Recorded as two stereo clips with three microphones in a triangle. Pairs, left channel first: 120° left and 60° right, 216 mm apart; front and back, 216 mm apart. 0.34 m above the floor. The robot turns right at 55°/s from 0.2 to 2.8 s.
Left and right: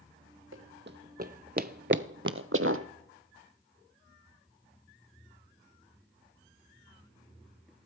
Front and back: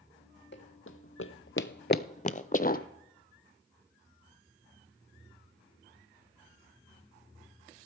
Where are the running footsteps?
35° right, 1.2 m; by 2.9 s 50° right, 1.0 m.